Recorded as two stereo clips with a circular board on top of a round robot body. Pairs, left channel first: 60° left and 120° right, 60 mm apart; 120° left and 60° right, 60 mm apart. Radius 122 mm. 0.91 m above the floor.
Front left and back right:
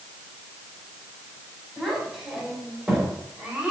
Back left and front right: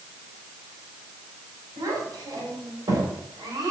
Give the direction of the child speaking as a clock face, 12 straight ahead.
1 o'clock.